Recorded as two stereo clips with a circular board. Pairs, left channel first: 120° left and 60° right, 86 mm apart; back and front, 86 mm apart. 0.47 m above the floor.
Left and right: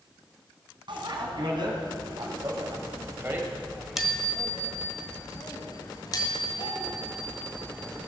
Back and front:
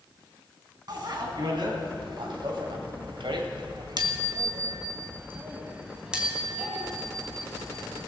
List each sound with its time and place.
0.9 s a bicycle bell: 35° right, 3 m; by 8.1 s 95° left, 3.5 m